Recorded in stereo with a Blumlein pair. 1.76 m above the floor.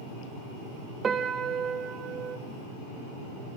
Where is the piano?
20° right, 1.8 m.